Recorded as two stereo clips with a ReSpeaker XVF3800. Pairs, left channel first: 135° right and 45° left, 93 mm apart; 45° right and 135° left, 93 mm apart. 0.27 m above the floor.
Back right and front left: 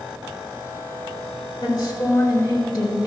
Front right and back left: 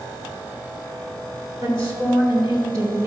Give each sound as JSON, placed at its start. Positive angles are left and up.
{"t": 1.6, "sound": "a woman speaking", "azimuth_deg": 180, "distance_m": 3.0}